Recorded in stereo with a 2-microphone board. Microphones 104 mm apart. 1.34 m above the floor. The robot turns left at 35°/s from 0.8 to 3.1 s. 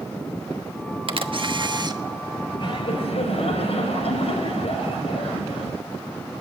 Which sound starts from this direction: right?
A camera shutter, at 1.1 s.